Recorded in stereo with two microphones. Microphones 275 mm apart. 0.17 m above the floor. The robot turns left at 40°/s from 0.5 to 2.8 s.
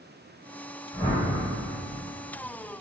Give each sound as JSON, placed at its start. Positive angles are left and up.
{"t": 0.9, "sound": "a whoosh", "side_deg": 15, "distance_m": 1.5}